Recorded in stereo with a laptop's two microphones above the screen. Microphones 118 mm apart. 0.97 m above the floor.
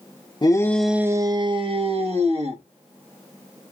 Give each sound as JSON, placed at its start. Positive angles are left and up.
{"t": 0.4, "sound": "a shout", "side_deg": 35, "distance_m": 0.5}